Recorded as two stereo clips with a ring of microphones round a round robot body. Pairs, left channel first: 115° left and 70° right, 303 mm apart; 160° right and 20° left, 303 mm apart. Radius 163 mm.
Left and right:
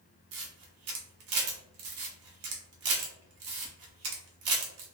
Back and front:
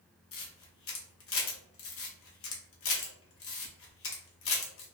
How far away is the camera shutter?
About 0.8 m.